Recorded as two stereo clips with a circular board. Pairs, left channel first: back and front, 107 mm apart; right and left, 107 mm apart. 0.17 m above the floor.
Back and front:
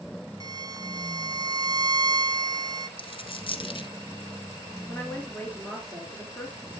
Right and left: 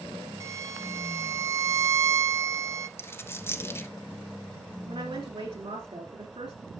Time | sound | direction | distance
0.4 | a violin | 40° left | 0.6 m
3.0 | a dropped coin | 155° right | 1.0 m
4.8 | a woman speaking | 105° left | 2.5 m